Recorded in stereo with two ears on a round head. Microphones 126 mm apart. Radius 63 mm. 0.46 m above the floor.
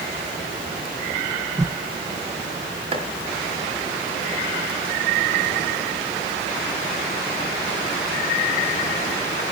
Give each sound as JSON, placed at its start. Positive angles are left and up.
{"t": 1.6, "sound": "a whoosh", "side_deg": -25, "distance_m": 1.3}
{"t": 2.9, "sound": "chopping", "side_deg": -40, "distance_m": 4.0}